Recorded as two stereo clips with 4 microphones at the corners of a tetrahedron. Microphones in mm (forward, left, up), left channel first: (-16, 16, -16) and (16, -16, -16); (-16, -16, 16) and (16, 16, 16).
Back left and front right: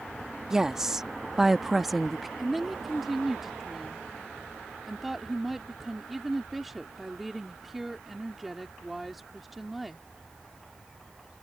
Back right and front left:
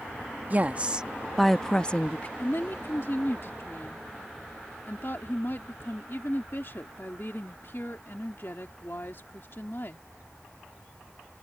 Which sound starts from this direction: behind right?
A woman speaking, at 2.4 s.